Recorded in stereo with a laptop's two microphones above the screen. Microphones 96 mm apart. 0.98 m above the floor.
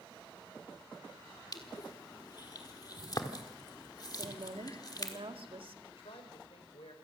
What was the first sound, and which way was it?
Crushing, 40° left (ahead or behind).